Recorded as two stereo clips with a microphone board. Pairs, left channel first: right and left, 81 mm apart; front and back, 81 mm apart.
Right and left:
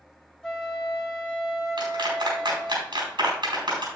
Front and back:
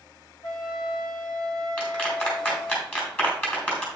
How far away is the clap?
About 4.5 m.